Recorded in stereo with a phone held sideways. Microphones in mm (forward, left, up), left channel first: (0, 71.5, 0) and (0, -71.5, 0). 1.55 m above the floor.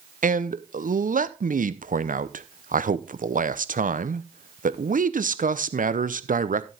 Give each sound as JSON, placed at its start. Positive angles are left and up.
{"t": 0.2, "sound": "a man speaking", "side_deg": -75, "distance_m": 0.7}